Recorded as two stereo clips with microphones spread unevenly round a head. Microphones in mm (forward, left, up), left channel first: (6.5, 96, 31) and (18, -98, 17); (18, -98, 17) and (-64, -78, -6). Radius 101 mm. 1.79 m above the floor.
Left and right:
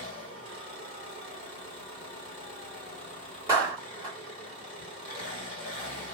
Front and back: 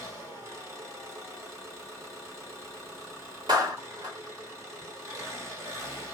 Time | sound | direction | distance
0.0 | an engine running | 130° right | 1.8 m
3.5 | a clap | 160° right | 1.5 m